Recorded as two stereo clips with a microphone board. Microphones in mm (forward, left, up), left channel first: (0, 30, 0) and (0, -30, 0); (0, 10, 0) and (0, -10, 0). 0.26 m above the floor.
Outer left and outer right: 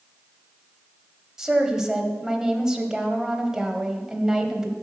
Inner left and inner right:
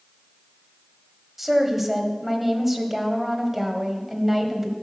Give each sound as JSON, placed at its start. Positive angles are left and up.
{"t": 1.4, "sound": "a woman speaking", "side_deg": -10, "distance_m": 1.0}